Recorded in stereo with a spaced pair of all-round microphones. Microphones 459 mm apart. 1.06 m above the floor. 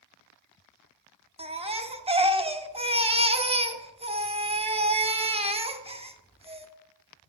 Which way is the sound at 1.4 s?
15° right (ahead or behind).